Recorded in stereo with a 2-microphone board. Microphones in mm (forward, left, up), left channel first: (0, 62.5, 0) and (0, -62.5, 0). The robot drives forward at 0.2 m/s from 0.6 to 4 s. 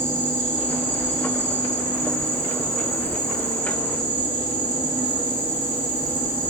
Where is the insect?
15° right (ahead or behind), 0.8 m.